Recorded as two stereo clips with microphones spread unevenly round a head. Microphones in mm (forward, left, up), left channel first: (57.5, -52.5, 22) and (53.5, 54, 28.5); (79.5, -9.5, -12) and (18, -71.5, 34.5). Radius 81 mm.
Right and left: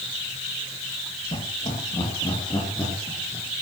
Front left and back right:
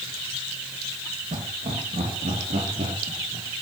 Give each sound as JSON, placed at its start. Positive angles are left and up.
{"t": 1.3, "sound": "laughter", "azimuth_deg": -140, "distance_m": 2.5}